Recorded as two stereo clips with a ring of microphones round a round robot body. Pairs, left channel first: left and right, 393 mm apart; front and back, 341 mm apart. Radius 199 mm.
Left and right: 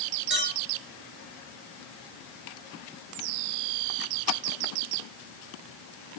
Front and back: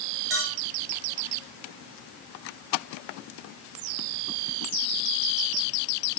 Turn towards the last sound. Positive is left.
turn(degrees=-155)